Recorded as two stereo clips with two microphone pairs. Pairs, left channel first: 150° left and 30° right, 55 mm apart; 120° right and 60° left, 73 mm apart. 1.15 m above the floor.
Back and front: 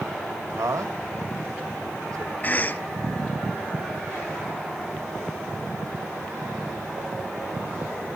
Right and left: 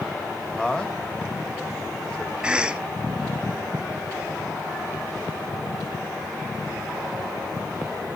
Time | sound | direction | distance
0.6 | a man speaking | 40° right | 1.9 m
2.4 | a cough | 125° left | 0.6 m